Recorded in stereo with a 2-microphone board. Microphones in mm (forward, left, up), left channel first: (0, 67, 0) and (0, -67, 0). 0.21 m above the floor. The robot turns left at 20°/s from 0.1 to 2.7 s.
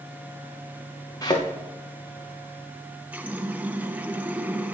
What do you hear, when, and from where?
1.2 s a thud: 25° left (ahead or behind), 3.5 m; by 1.5 s 30° left (ahead or behind), 3.5 m
3.1 s a running tap: 10° right (ahead or behind), 1.0 m